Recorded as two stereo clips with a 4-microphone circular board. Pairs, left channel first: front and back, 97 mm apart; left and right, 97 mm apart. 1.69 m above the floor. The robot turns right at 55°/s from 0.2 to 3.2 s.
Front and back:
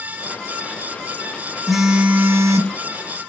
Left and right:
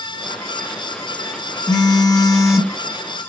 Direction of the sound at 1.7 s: 90° left.